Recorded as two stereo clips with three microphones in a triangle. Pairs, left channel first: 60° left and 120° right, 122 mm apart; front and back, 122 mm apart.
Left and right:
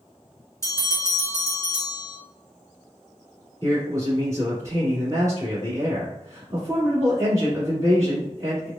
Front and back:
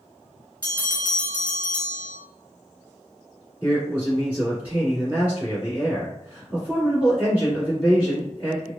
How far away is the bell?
About 1.8 m.